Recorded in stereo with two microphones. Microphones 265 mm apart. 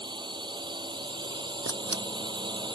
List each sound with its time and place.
0.0 s a drone: 15° right (ahead or behind)
1.6 s a camera shutter: 65° right (ahead or behind)